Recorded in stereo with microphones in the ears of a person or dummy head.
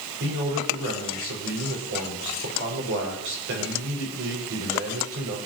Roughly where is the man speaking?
Right.